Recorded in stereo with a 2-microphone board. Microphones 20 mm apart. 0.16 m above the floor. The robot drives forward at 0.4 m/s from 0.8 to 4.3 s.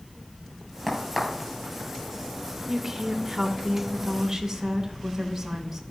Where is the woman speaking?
10° right (ahead or behind), 1.0 m.